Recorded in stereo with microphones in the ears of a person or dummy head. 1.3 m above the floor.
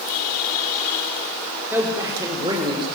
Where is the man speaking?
10° right (ahead or behind), 3.5 m; by 2.9 s 25° right (ahead or behind), 4.5 m.